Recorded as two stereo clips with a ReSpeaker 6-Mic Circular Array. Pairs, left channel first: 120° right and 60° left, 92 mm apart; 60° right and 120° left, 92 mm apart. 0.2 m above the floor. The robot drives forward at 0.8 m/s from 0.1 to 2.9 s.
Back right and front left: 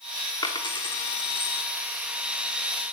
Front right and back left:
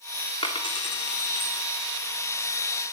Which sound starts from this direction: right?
A dropped coin, at 0.4 s.